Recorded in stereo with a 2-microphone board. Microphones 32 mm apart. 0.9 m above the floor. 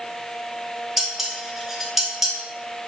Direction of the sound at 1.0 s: 10° right (ahead or behind).